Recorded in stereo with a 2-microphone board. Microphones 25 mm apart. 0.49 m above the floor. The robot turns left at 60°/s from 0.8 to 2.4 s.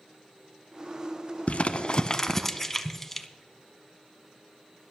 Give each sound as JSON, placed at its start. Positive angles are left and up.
{"t": 1.5, "sound": "crumpling", "side_deg": 60, "distance_m": 0.7}